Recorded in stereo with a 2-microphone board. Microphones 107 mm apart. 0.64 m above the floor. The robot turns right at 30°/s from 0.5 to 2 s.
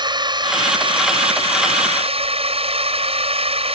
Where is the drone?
130° right; by 3.8 s 85° right.